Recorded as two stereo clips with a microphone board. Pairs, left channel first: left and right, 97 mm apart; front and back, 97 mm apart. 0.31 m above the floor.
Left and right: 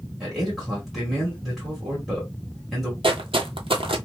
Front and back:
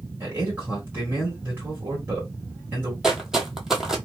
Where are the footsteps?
95° right, 0.6 m.